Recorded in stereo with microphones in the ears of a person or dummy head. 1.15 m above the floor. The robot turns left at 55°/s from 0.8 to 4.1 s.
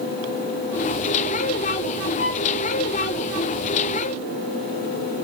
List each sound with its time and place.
2.2 s a violin: 80° left, 2.5 m